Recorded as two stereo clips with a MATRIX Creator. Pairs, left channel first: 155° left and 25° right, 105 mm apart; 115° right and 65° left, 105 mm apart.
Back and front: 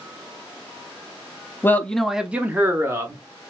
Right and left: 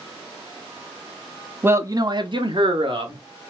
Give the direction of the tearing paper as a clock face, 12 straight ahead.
I don't hear tearing paper.